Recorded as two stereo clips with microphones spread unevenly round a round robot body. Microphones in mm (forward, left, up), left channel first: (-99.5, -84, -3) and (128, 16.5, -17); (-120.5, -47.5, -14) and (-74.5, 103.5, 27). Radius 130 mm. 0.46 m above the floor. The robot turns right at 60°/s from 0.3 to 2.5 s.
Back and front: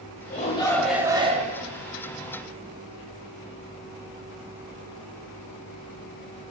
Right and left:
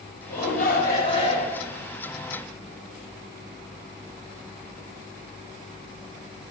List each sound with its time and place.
0.3 s a shout: 100° right, 1.8 m; by 1.6 s 20° right, 1.8 m